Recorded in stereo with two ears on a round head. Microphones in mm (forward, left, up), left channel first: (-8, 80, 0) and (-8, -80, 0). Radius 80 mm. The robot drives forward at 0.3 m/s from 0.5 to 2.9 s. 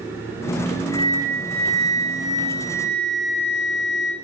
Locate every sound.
0.9 s a flute: 20° left (ahead or behind), 0.6 m; by 4.1 s 15° left (ahead or behind), 0.7 m